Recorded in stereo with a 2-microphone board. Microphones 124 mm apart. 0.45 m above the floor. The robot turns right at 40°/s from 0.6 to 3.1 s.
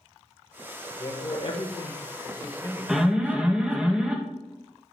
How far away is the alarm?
About 1.1 m.